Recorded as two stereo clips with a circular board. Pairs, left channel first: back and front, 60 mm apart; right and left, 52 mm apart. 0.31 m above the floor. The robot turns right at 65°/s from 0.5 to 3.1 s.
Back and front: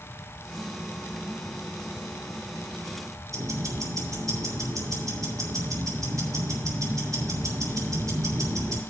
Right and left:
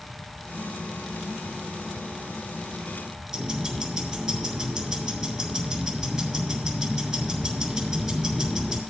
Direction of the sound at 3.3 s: 10° left.